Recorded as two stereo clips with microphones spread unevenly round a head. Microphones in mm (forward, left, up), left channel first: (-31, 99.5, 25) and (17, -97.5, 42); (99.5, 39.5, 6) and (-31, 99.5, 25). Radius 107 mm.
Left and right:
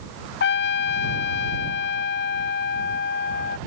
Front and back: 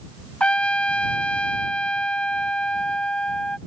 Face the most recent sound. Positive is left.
turn(degrees=60)